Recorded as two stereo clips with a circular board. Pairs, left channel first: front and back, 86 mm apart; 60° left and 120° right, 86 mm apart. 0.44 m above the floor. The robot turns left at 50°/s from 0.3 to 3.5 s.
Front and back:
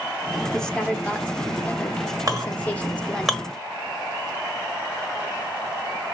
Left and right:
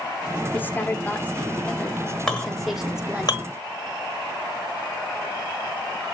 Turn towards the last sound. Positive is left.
turn(degrees=80)